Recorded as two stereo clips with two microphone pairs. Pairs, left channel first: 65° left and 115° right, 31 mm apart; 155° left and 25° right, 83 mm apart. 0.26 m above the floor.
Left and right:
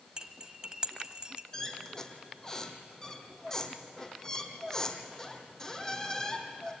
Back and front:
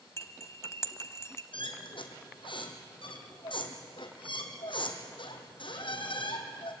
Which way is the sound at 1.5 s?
140° left.